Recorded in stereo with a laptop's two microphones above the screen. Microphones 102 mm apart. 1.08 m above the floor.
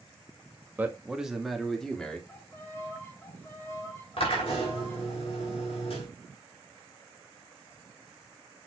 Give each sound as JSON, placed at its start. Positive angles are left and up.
{"t": 0.8, "sound": "a man speaking", "side_deg": -15, "distance_m": 1.3}
{"t": 2.3, "sound": "a violin", "side_deg": 20, "distance_m": 1.8}
{"t": 4.2, "sound": "a drill", "side_deg": 65, "distance_m": 3.5}